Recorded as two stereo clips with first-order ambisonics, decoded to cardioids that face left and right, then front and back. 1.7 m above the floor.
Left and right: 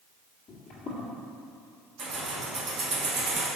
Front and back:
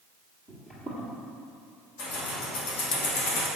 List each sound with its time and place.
0.5 s footsteps: 75° left, 2.0 m
2.0 s keys jangling: 25° right, 1.6 m